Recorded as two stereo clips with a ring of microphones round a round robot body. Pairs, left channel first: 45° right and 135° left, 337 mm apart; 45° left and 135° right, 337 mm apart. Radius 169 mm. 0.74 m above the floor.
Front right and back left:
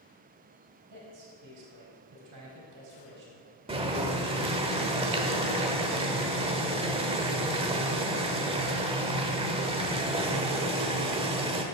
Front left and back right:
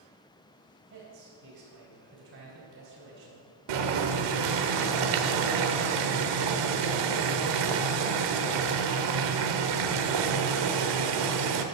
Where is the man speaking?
175° left, 4.5 m.